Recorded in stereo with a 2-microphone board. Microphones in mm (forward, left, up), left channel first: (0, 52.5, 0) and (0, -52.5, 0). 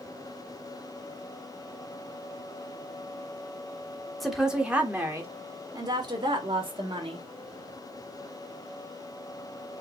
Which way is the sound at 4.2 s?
Centre (ahead or behind).